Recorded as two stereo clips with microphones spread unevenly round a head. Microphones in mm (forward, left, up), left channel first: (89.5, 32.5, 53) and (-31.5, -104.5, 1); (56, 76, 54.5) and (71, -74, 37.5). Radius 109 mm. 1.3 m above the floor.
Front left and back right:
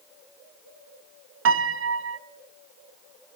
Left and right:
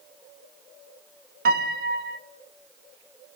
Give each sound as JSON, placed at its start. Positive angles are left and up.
{"t": 1.4, "sound": "a piano", "azimuth_deg": -120, "distance_m": 1.0}